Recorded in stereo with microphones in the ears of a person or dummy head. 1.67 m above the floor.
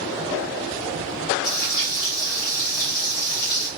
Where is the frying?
45° left (ahead or behind), 1.2 m.